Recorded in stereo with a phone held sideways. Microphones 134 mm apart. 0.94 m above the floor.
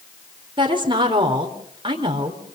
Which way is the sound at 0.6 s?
35° right (ahead or behind).